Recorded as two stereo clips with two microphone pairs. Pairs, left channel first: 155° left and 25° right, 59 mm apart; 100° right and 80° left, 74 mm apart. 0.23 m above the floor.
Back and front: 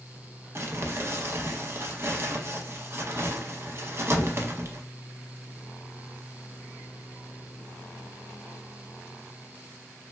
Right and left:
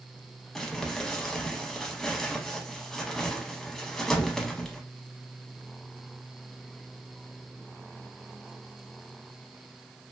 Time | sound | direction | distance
0.6 | crumpling | 15° right | 0.5 m